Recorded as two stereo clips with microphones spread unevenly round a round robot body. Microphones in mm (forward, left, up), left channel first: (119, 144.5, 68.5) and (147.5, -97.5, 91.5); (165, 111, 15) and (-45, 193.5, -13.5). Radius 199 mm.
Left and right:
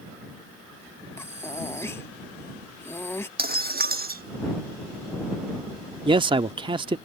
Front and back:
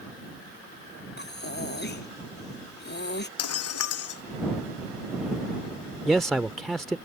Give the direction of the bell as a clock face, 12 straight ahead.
No bell in this recording.